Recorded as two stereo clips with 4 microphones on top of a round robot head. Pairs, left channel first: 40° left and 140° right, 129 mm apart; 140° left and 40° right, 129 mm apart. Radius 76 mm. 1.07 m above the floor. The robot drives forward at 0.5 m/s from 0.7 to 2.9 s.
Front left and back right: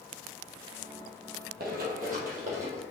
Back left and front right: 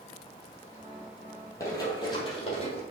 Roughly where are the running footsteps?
Behind right.